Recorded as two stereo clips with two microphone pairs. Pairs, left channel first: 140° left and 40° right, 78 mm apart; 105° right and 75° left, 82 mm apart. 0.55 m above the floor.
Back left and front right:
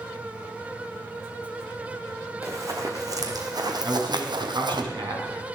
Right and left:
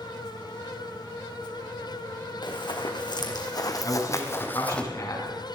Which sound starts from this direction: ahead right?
A man speaking, at 3.8 s.